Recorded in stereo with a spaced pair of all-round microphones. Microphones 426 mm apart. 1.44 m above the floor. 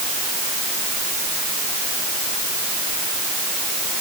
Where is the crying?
I don't hear crying.